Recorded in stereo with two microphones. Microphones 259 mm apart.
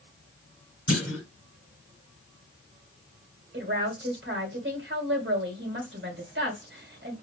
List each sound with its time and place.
0.9 s a clunk: 55° right (ahead or behind), 2.5 m
3.5 s a woman speaking: 45° right (ahead or behind), 1.9 m